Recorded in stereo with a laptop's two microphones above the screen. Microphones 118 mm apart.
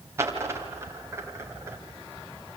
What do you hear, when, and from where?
0.2 s a dropped coin: 25° right (ahead or behind), 2 m